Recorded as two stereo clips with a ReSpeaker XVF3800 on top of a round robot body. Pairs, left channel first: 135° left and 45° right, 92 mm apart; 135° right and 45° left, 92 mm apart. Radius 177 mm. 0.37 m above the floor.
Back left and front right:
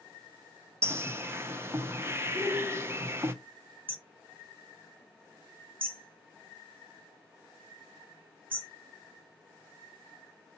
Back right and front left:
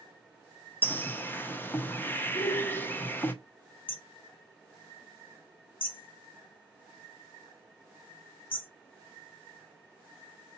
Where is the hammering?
115° right, 2 m.